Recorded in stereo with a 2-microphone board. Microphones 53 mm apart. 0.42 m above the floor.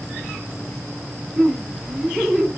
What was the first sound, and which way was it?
Laughter, 10° right (ahead or behind).